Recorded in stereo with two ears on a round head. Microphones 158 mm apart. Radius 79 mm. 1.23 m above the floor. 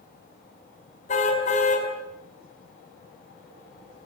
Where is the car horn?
40° left (ahead or behind), 5 m.